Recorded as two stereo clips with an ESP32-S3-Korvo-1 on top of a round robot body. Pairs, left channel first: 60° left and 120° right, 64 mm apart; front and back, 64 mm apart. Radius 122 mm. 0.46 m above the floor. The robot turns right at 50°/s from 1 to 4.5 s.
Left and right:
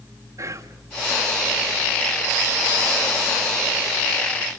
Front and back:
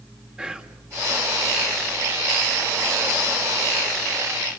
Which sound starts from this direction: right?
Whispering, at 0.4 s.